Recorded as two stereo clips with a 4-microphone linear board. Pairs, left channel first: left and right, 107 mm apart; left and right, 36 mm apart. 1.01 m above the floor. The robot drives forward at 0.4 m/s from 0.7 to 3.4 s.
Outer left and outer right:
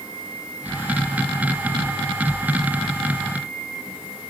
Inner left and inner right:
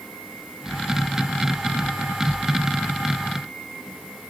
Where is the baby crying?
No baby crying in this recording.